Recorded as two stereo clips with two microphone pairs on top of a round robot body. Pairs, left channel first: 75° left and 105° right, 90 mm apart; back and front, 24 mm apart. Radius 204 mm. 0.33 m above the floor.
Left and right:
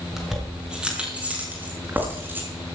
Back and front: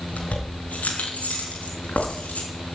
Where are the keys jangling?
170° left, 5 m; by 2.5 s 170° right, 5.5 m.